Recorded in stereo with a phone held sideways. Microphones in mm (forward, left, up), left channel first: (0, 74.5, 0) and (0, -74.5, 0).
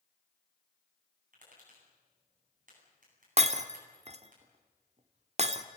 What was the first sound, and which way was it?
Tapping, 60° right (ahead or behind).